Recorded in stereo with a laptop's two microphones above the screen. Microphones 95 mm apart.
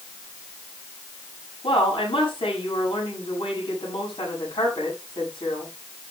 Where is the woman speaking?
75° left (ahead or behind), 7 m.